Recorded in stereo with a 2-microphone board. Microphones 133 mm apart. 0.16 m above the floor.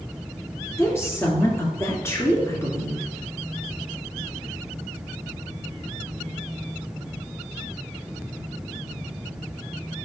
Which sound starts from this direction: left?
A woman speaking, at 0.8 s.